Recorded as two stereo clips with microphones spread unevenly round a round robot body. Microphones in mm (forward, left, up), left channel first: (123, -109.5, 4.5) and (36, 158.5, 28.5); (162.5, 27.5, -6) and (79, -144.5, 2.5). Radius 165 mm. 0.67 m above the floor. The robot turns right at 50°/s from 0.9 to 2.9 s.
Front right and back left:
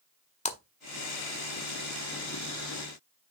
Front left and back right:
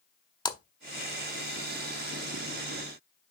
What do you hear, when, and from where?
0.5 s a splash: 5° right, 1.1 m